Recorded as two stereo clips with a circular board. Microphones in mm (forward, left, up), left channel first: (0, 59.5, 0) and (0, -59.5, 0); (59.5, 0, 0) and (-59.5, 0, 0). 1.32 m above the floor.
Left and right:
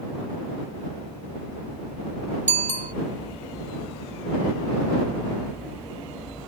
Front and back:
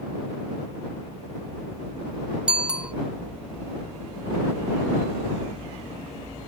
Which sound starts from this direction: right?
A bicycle bell, at 2.5 s.